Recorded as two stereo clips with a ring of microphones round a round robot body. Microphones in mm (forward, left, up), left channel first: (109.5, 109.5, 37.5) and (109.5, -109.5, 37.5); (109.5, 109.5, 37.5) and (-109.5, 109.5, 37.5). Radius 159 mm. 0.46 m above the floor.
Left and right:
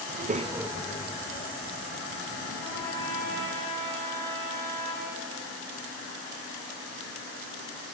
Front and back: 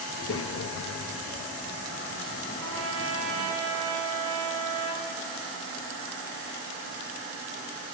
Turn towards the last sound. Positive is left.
turn(degrees=170)